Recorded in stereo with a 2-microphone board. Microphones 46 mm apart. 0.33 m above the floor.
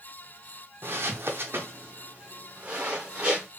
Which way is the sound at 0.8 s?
60° right (ahead or behind).